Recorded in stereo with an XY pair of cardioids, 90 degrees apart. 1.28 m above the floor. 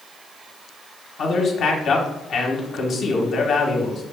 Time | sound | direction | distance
1.2 | a man speaking | 65° left | 1.2 m